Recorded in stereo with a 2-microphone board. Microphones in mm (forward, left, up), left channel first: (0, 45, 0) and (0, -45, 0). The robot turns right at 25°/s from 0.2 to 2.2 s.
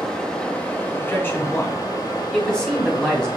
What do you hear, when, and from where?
0.0 s running water: 5° left, 1.5 m; by 3.4 s 55° left, 1.5 m
1.0 s a man speaking: 30° left (ahead or behind), 1.3 m; by 3.3 s 10° left (ahead or behind), 1.3 m